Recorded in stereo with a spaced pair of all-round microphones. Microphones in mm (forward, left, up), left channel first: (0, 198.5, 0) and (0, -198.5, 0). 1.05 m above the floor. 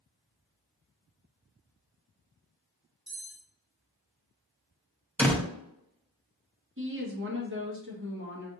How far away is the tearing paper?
No tearing paper in this recording.